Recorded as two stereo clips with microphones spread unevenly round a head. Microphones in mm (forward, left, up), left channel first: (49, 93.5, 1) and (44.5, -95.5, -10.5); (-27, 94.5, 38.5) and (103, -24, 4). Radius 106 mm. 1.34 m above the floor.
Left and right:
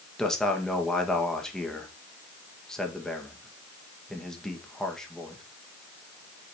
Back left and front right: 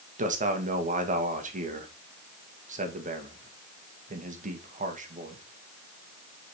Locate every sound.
0.2 s a man speaking: straight ahead, 1.7 m